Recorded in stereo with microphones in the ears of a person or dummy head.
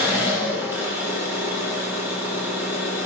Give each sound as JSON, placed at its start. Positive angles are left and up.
{"t": 0.0, "sound": "an engine running", "side_deg": -15, "distance_m": 3.0}